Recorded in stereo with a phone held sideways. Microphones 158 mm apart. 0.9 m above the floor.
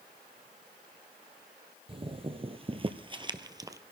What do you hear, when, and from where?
1.9 s footsteps: 35° right (ahead or behind), 1.4 m; by 3.8 s 20° right (ahead or behind), 1.1 m